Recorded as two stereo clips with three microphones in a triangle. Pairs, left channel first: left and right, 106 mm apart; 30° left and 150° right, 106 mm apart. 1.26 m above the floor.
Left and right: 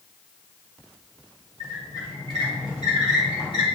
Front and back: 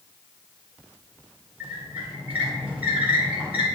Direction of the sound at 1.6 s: 135° left.